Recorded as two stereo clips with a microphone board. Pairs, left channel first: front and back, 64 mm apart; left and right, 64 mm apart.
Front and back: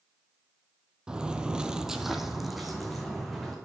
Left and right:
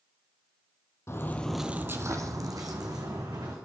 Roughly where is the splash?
No splash in this recording.